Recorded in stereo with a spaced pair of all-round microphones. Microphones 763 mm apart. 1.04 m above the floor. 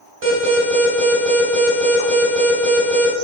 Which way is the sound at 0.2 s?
45° right (ahead or behind).